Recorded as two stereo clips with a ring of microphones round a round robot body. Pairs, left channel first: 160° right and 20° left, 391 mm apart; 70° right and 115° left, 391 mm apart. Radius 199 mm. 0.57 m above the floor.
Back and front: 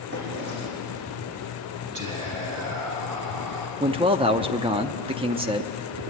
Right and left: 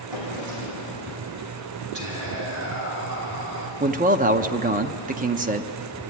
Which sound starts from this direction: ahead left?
Whispering, at 1.9 s.